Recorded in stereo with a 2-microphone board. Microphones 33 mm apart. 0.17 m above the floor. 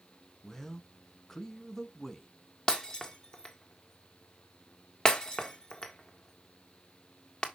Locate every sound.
0.4 s a man speaking: 10° left (ahead or behind), 1.2 m
2.7 s breaking glass: 25° left (ahead or behind), 1.5 m